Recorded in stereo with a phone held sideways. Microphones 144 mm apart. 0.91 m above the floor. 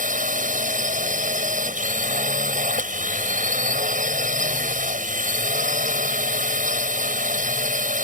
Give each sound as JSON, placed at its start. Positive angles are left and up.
{"t": 0.0, "sound": "a drone", "side_deg": -60}